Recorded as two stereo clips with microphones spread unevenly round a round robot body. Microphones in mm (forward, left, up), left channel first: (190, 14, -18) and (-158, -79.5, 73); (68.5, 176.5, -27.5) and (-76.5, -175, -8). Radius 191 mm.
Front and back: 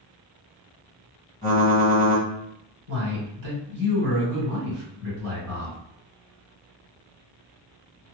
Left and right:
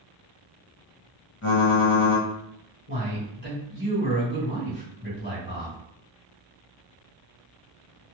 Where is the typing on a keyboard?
65° left, 1.6 m.